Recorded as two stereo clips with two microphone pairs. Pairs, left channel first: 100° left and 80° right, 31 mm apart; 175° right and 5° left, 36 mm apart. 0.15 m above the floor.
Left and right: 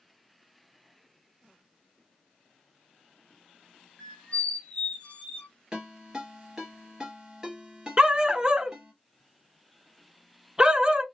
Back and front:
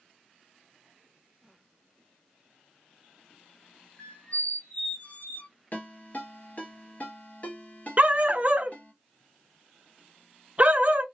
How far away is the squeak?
About 0.8 m.